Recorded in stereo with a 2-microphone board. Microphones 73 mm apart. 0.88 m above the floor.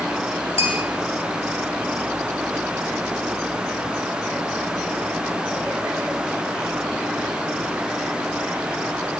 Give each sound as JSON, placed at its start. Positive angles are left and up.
{"t": 0.6, "sound": "a bell", "side_deg": -40, "distance_m": 3.5}